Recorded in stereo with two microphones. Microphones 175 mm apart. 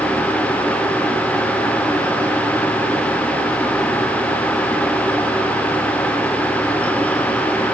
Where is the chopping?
No chopping in this recording.